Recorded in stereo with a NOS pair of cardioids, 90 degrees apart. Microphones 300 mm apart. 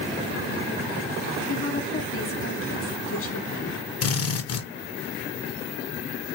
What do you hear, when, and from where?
1.5 s a woman speaking: 45° left, 1.2 m
4.0 s a drill: 55° left, 0.9 m